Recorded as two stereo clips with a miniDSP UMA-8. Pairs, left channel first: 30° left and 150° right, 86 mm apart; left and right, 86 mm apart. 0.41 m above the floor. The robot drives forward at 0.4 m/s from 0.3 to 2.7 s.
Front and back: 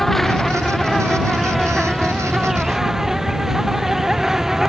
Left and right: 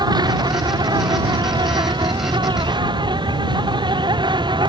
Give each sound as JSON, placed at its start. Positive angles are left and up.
{"t": 0.0, "sound": "an insect", "azimuth_deg": -55}